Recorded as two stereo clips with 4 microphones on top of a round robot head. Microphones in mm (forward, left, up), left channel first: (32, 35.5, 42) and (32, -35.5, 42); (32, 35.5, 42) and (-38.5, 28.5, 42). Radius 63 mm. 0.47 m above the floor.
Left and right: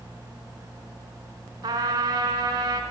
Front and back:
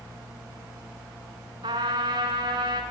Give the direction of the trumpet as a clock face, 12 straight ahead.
5 o'clock.